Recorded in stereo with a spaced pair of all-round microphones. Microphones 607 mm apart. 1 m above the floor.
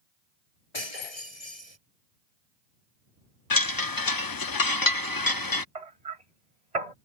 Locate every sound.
0.7 s breaking glass: 70° left (ahead or behind)
3.5 s a chime: 35° left (ahead or behind)
5.8 s hammering: 85° right